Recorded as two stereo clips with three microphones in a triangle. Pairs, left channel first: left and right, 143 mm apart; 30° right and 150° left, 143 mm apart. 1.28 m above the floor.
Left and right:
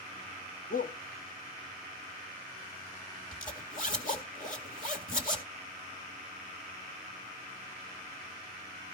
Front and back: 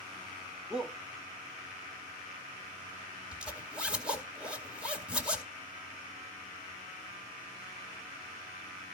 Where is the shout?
65° left, 0.9 m.